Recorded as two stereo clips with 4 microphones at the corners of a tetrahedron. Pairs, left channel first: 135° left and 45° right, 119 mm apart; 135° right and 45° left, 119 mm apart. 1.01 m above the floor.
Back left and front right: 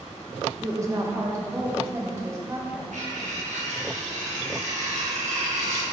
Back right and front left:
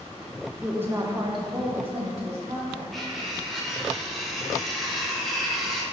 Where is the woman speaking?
35° right, 0.6 m; by 2.8 s 20° left, 1.8 m.